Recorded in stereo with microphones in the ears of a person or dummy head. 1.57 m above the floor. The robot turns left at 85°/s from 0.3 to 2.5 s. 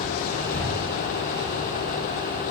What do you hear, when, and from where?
0.5 s breathing: 15° left (ahead or behind), 0.6 m; by 1.5 s 65° right (ahead or behind), 0.6 m